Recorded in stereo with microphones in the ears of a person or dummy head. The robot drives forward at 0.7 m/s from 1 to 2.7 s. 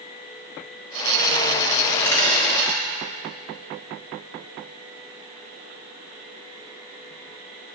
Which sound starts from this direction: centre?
A dropped coin, at 1.9 s.